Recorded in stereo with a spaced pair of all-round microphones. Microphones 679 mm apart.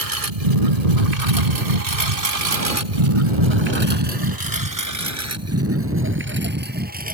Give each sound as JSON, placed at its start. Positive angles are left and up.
{"t": 0.0, "sound": "a lawn mower", "side_deg": -55}